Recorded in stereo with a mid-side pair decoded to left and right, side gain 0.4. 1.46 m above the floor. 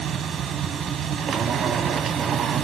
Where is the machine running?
60° right, 0.8 m.